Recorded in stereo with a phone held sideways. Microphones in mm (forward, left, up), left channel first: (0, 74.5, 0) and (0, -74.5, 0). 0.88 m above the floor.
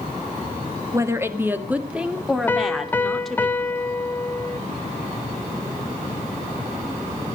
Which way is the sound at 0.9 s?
20° right (ahead or behind).